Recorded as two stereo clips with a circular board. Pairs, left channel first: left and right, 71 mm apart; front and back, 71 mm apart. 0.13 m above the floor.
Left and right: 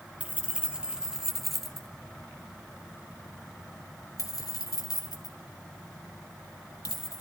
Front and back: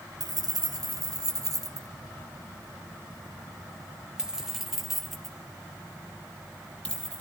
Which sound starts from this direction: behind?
Keys jangling, at 0.2 s.